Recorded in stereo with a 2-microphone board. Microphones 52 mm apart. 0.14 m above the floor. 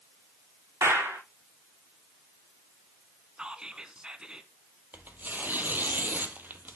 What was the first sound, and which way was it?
A clap, 65° right (ahead or behind).